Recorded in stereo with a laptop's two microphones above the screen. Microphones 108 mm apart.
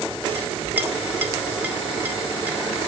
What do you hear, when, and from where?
0.3 s a clink: 15° right (ahead or behind), 2.5 m